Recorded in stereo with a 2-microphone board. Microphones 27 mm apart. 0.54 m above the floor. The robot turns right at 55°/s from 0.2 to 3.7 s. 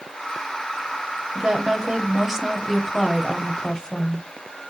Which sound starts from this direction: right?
A woman speaking, at 1.4 s.